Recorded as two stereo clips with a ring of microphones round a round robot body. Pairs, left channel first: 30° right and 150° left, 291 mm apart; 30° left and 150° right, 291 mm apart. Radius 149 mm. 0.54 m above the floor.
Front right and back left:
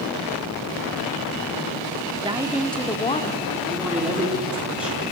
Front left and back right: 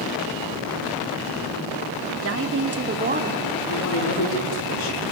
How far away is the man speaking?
About 6.5 m.